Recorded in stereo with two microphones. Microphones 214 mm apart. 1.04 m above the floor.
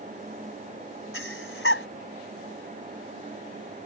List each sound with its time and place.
1.1 s breathing: 75° left (ahead or behind)